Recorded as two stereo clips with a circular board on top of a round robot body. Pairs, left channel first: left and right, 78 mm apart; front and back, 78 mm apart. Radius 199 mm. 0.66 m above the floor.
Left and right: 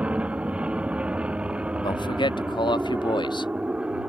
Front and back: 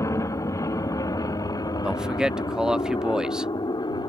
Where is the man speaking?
100° left.